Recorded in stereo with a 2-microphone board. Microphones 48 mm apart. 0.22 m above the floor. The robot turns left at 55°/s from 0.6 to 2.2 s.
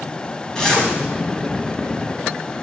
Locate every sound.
0.6 s a zipper: 15° left (ahead or behind), 1.8 m; by 0.9 s 5° left (ahead or behind), 1.8 m